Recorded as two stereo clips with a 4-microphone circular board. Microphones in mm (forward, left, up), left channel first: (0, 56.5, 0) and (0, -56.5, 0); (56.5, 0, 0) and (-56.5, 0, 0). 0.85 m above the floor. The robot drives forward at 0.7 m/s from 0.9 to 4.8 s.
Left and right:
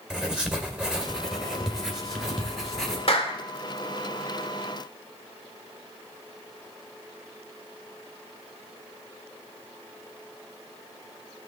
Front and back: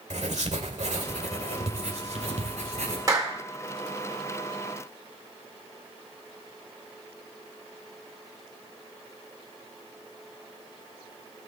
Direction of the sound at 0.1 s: 175° right.